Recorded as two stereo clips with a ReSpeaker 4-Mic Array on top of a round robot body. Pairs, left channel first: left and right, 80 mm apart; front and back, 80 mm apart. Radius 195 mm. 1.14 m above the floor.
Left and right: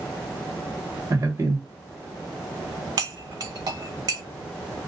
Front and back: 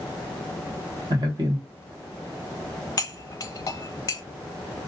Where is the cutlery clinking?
50° right, 0.5 m.